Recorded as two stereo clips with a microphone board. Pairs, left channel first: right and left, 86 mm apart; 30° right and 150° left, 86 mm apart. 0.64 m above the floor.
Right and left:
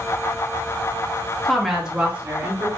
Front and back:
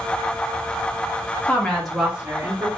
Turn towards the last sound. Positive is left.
turn(degrees=130)